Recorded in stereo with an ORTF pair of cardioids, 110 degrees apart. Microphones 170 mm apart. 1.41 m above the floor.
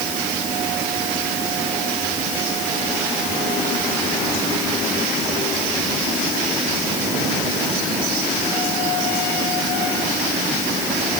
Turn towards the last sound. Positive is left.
No sound to turn to.